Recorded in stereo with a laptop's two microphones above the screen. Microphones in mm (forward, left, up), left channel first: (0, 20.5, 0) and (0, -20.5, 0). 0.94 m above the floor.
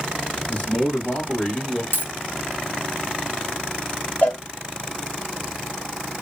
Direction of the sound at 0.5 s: 40° left (ahead or behind).